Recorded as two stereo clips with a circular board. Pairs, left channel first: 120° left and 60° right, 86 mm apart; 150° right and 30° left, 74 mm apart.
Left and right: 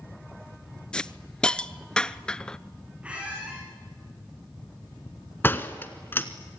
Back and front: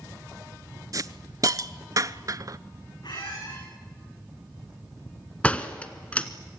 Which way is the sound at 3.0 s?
135° right.